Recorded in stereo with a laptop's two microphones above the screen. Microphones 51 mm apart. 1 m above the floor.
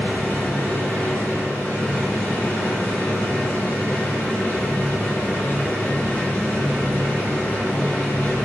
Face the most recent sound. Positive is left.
turn(degrees=40)  # may be behind; listen again after turning